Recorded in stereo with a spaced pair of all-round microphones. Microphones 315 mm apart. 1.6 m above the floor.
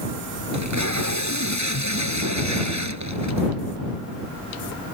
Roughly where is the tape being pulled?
Right.